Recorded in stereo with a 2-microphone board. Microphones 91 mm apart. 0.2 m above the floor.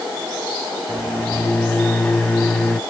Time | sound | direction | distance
0.9 | a microwave | 10° left (ahead or behind) | 0.8 m